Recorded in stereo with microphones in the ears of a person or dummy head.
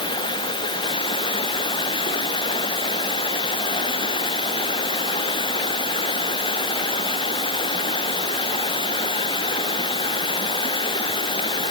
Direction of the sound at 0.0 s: 20° left (ahead or behind).